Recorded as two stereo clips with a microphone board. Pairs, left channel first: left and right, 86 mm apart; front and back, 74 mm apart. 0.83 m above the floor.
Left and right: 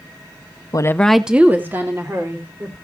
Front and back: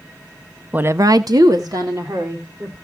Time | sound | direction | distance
0.7 | a woman speaking | 115° left | 0.6 m